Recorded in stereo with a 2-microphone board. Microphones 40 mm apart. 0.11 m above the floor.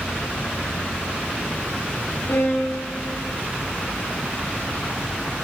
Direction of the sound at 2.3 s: 75° left (ahead or behind).